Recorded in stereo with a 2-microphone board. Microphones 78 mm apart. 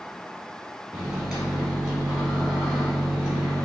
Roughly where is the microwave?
Centre.